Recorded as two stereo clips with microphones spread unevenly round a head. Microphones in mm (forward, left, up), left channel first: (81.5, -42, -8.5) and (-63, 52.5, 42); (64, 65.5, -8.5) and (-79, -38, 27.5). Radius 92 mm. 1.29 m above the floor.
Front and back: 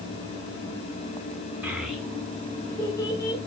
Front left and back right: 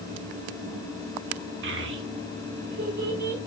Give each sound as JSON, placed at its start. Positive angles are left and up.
{"t": 1.6, "sound": "a child speaking", "azimuth_deg": -140, "distance_m": 1.8}